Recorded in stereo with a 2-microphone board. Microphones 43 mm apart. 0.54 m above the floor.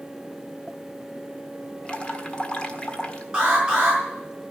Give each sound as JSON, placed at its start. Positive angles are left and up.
{"t": 1.9, "sound": "dripping", "side_deg": 25, "distance_m": 1.5}
{"t": 3.3, "sound": "an alarm", "side_deg": -15, "distance_m": 6.0}